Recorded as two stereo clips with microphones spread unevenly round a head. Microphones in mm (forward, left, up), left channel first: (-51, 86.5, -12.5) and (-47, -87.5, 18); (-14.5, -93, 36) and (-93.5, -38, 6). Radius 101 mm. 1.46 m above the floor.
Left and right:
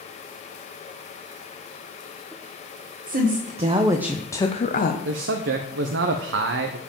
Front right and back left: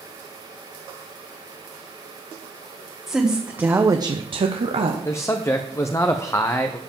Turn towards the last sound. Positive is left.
turn(degrees=-105)